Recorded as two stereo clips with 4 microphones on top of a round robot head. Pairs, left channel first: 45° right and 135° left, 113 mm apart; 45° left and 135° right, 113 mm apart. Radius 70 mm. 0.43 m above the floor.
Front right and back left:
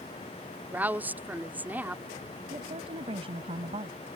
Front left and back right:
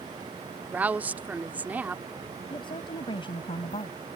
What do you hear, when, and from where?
0.7 s a woman speaking: straight behind
2.5 s a woman speaking: 90° left